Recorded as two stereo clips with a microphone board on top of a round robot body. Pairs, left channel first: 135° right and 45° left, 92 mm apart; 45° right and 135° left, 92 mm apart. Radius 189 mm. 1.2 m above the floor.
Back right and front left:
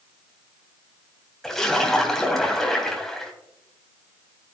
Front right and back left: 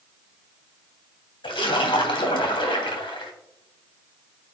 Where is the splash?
50° right, 3 m.